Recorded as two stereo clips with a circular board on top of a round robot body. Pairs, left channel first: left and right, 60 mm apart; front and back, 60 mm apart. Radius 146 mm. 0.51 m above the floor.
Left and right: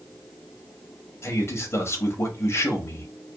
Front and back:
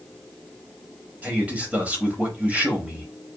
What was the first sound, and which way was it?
A man speaking, 120° left.